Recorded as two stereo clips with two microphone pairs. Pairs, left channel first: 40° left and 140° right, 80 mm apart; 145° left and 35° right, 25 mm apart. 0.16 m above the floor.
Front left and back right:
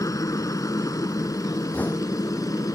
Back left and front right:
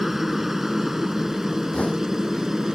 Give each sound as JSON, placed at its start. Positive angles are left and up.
{"t": 0.0, "sound": "a helicopter", "azimuth_deg": 35}
{"t": 1.7, "sound": "knocking", "azimuth_deg": 105}